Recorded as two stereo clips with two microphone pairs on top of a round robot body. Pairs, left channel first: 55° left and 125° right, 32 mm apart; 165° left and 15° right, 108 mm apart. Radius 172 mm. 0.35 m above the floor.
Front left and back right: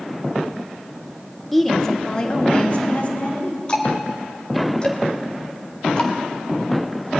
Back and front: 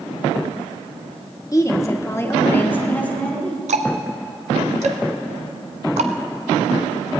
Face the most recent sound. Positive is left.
turn(degrees=-5)